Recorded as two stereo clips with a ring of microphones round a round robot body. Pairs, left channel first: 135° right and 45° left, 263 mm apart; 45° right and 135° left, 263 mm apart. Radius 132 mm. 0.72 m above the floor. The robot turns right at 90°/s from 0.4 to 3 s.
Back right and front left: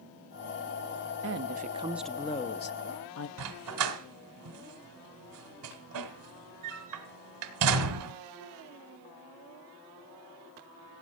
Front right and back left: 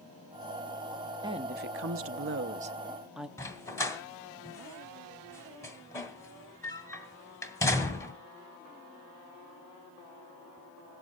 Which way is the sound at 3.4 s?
35° left.